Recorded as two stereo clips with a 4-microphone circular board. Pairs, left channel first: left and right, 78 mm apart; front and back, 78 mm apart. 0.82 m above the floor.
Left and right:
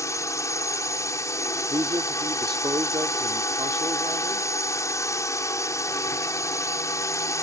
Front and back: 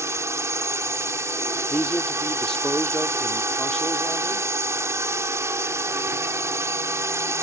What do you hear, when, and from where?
0.0 s a drone: 135° left
1.7 s a man speaking: 80° right